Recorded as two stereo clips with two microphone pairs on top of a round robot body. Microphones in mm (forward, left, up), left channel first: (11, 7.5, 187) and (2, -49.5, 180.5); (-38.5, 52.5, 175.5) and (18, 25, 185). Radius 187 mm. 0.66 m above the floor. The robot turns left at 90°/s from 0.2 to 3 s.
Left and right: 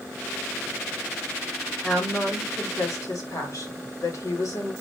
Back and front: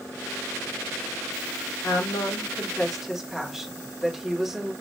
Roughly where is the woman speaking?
Behind.